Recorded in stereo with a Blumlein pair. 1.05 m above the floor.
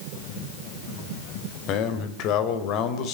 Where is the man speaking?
40° left, 4 m.